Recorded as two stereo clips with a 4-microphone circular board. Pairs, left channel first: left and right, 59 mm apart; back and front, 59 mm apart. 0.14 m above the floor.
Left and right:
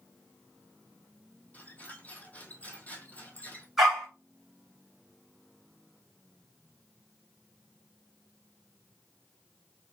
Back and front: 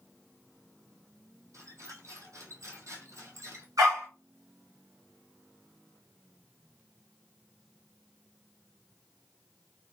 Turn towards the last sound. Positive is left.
turn(degrees=0)